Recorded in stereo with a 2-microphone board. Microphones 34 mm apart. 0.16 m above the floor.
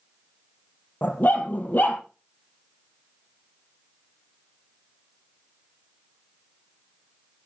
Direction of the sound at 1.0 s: 60° left (ahead or behind).